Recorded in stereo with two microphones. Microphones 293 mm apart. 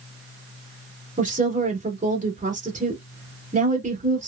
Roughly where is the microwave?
I don't hear a microwave.